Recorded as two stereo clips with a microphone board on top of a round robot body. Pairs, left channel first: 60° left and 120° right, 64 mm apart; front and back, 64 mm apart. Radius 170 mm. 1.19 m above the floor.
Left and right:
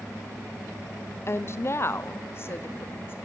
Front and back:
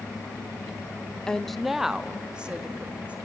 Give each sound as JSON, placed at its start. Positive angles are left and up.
{"t": 1.3, "sound": "a woman speaking", "azimuth_deg": 70, "distance_m": 0.7}